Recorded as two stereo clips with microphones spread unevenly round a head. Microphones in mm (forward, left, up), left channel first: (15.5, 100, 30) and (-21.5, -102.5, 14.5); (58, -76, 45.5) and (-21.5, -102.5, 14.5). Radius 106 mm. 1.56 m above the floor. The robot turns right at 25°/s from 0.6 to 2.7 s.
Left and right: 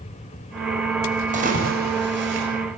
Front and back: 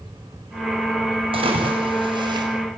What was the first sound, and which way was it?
A splash, 155° right.